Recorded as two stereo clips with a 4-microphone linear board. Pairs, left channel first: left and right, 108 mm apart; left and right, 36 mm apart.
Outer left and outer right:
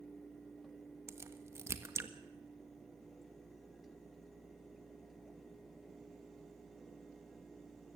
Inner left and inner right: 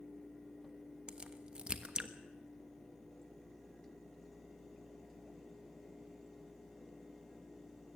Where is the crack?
25° right (ahead or behind), 1.3 m.